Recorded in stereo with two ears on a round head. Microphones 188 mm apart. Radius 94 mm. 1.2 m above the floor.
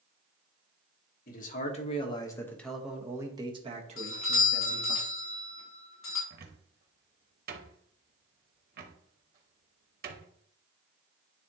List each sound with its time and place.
1.3 s a man speaking: 40° left (ahead or behind), 1.5 m; by 5.0 s 50° right (ahead or behind), 1.9 m
4.0 s a doorbell: 65° left (ahead or behind), 3 m
6.3 s a cupboard door: 45° right (ahead or behind), 1.0 m